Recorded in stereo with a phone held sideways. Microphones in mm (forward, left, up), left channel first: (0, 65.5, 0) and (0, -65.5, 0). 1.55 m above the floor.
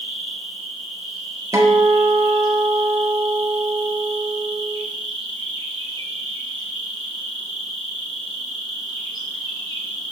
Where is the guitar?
25° right (ahead or behind), 0.6 m.